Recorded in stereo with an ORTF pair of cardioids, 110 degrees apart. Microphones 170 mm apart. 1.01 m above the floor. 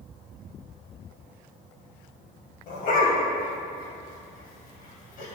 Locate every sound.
2.7 s a dog barking: 55° left, 2.5 m